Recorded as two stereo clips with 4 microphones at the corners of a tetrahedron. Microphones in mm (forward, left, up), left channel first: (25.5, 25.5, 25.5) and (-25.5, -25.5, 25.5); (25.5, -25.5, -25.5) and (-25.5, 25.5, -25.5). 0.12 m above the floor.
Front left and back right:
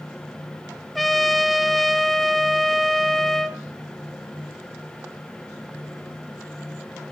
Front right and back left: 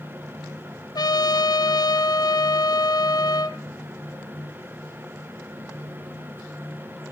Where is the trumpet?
40° right, 0.9 m.